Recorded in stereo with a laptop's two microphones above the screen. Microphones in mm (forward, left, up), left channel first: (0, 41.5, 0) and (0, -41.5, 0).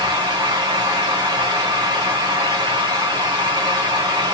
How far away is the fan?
About 1.2 m.